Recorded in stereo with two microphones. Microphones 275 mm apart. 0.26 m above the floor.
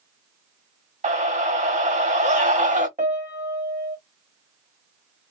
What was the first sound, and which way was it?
A scream, 25° right (ahead or behind).